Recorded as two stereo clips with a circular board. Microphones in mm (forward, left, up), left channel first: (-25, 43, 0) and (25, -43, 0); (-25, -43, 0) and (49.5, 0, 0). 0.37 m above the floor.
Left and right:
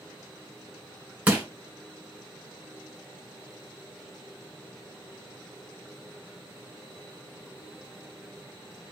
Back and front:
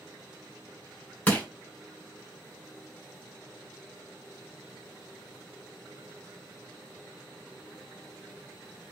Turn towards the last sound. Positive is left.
turn(degrees=-105)